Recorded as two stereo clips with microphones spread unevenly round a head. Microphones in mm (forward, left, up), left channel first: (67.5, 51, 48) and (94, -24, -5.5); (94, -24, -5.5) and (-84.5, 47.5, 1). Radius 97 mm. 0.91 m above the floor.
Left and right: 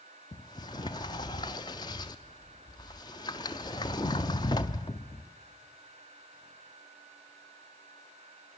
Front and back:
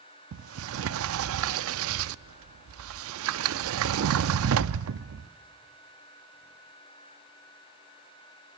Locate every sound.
0.3 s a sliding door: 155° left, 0.6 m